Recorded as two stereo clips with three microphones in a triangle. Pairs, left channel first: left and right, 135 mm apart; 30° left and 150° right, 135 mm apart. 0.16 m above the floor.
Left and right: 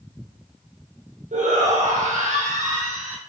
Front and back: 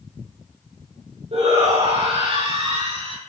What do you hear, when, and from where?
1.3 s a shout: 110° right, 6.5 m; by 3.2 s 105° right, 5.5 m